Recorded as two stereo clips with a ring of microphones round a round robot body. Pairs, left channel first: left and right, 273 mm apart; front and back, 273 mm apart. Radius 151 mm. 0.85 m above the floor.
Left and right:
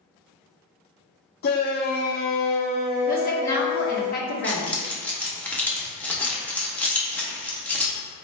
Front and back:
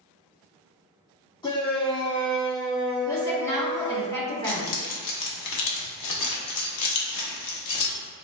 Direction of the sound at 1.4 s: 65° left.